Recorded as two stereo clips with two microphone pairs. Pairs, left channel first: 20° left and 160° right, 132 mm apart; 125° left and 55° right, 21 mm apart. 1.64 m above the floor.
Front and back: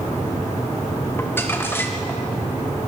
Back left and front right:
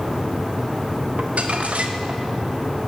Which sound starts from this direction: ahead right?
Crumpling, at 1.2 s.